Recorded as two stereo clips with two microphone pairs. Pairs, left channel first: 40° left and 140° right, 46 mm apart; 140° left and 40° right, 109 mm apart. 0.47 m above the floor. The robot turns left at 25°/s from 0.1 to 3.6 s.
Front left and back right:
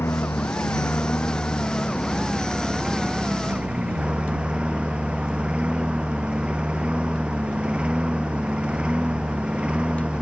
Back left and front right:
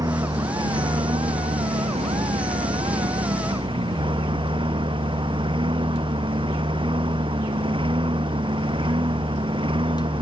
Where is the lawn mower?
15° left; by 10.2 s 75° right.